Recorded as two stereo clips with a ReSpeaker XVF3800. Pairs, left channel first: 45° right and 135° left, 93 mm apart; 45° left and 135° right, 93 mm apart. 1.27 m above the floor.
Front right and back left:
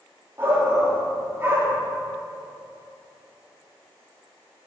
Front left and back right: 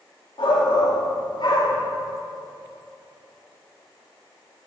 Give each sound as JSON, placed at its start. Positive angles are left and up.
{"t": 0.4, "sound": "a shout", "azimuth_deg": 70, "distance_m": 2.5}